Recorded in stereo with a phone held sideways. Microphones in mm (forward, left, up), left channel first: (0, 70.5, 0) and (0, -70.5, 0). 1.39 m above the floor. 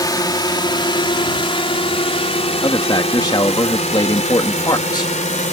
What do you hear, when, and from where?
0.0 s a drone: 25° left (ahead or behind); by 5.5 s 55° left (ahead or behind)
2.6 s a man speaking: 30° left (ahead or behind)